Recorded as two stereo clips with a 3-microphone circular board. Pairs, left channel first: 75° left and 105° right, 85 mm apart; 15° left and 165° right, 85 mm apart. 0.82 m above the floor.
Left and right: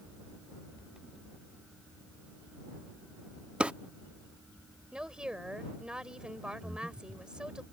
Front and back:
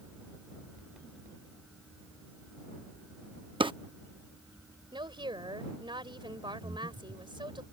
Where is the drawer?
Straight behind.